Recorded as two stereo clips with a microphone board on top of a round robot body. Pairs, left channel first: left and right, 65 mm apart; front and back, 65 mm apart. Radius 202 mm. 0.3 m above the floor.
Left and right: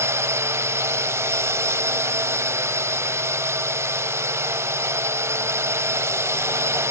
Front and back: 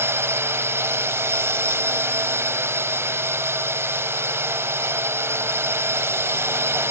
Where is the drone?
135° right.